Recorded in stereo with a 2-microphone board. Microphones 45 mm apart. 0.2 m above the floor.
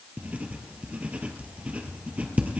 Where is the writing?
30° right (ahead or behind), 2 m.